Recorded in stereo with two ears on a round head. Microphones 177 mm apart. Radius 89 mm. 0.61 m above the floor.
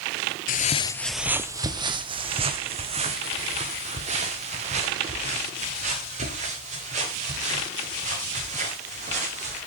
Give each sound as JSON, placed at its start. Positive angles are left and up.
{"t": 0.5, "sound": "footsteps", "side_deg": 45, "distance_m": 0.7}